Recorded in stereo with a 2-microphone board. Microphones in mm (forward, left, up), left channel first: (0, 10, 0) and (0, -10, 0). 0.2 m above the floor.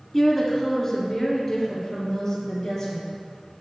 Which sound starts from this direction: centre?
A woman speaking, at 0.1 s.